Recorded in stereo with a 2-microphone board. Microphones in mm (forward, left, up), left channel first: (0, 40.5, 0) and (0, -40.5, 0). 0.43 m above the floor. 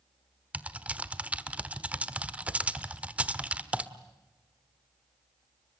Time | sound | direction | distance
0.5 | typing on a keyboard | 15° right (ahead or behind) | 1.2 m